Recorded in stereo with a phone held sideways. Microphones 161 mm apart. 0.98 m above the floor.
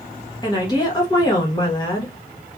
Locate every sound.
0.4 s a woman speaking: 25° left (ahead or behind), 1.1 m